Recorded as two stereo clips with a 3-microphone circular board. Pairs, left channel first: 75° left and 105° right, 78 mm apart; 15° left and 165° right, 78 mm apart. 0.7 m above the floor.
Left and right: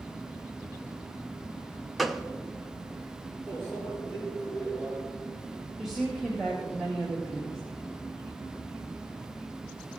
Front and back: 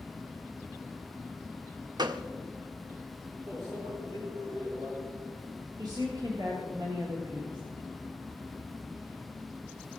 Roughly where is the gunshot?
Behind.